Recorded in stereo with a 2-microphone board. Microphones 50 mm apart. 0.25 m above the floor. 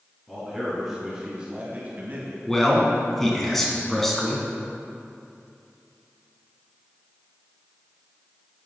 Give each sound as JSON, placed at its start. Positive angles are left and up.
{"t": 0.3, "sound": "a man speaking", "side_deg": 5, "distance_m": 3.0}
{"t": 2.5, "sound": "a man speaking", "side_deg": 5, "distance_m": 2.0}